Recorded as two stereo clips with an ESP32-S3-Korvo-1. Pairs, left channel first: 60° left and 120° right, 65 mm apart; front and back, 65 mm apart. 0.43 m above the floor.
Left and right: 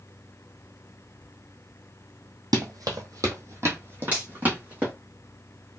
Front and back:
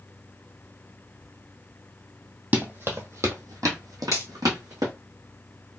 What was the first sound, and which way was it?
Running footsteps, 120° right.